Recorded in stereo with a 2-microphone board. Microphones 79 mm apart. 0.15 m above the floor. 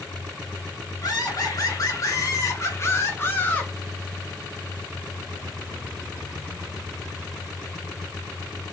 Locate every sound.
1.0 s laughter: 50° left (ahead or behind), 2 m; by 3.7 s 20° left (ahead or behind), 1.4 m